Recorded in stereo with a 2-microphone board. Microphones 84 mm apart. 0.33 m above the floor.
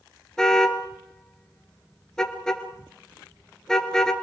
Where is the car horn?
5° left (ahead or behind), 2.5 m.